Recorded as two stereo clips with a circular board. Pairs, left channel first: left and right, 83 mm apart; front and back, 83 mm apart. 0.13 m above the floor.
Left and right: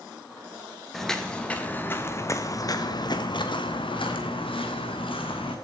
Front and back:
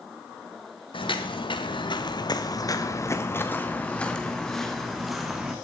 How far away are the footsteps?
About 1.9 m.